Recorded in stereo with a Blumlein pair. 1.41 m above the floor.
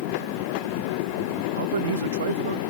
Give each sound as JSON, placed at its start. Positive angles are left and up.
{"t": 1.6, "sound": "a man speaking", "azimuth_deg": -65}